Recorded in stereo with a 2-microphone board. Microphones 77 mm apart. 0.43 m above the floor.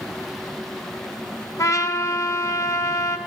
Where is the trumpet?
50° left (ahead or behind), 0.6 m.